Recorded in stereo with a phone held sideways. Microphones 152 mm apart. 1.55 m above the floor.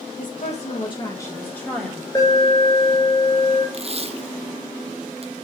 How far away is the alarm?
About 5 m.